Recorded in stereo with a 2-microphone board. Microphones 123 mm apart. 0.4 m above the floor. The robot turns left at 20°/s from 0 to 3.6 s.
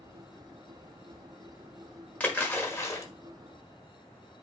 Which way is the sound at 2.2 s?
10° left (ahead or behind).